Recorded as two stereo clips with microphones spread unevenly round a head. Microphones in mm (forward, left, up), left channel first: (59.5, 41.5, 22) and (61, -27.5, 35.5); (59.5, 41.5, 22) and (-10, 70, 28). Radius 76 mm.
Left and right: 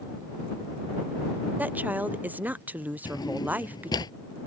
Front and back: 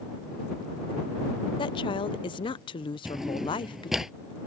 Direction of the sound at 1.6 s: 20° right.